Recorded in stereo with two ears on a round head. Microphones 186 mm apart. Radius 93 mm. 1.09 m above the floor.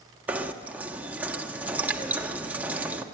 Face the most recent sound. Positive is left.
turn(degrees=-10)  # may be behind; listen again after turning